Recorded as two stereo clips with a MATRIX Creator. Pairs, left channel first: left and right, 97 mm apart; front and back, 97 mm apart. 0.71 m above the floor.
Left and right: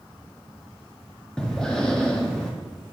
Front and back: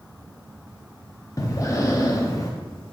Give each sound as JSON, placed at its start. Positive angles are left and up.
{"t": 1.4, "sound": "breathing", "azimuth_deg": 10, "distance_m": 0.6}